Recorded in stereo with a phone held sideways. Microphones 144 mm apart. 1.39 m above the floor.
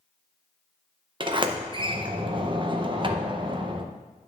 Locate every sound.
1.2 s a sliding door: 35° right (ahead or behind), 0.6 m